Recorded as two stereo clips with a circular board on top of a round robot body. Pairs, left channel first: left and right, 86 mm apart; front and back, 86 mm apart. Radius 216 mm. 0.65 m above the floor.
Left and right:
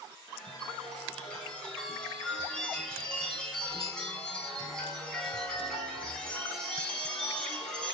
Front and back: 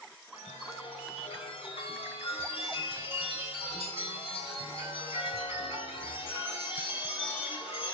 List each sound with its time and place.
0.3 s a chime: 10° left, 5 m